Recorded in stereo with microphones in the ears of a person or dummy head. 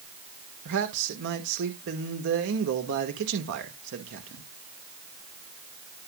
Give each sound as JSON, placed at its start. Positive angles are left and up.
{"t": 0.7, "sound": "a man speaking", "side_deg": -65, "distance_m": 1.6}